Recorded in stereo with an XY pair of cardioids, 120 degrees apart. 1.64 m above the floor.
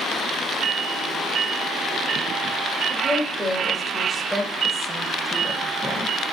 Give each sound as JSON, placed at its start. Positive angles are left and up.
{"t": 2.9, "sound": "a woman speaking", "azimuth_deg": -20, "distance_m": 2.5}